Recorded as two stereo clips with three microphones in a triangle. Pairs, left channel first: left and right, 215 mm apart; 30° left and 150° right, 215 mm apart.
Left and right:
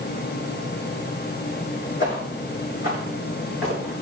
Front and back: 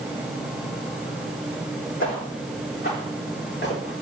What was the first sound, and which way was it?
Footsteps, 60° left.